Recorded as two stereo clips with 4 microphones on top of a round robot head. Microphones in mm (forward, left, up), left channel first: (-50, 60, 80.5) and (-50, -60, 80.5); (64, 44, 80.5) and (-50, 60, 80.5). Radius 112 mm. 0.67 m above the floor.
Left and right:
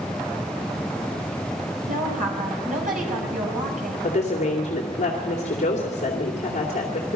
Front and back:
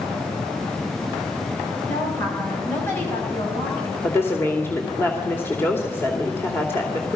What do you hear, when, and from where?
1.9 s a woman speaking: 80° right, 5.5 m
4.0 s a woman speaking: 60° left, 2.5 m